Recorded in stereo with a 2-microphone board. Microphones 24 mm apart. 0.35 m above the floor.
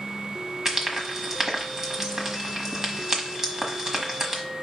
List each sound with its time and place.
0.7 s frying: 25° right (ahead or behind), 1.2 m